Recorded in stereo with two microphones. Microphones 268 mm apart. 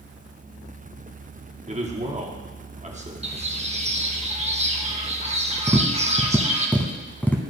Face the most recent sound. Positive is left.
turn(degrees=5)  # may be behind; listen again after turning